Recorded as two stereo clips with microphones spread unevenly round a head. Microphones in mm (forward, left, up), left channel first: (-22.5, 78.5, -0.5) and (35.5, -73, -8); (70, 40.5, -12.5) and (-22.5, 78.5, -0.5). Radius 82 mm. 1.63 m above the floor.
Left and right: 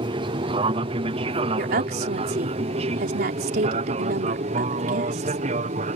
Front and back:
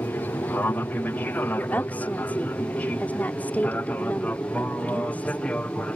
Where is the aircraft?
75° right; by 6.0 s 100° right.